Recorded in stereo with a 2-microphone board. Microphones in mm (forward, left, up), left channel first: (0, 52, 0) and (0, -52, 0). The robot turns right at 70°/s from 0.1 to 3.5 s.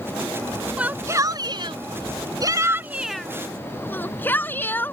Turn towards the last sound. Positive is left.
turn(degrees=20)  # may be behind; listen again after turning